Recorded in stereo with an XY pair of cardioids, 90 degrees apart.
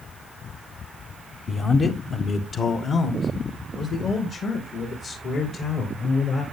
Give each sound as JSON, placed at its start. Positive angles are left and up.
{"t": 1.5, "sound": "a man speaking", "azimuth_deg": 45, "distance_m": 0.9}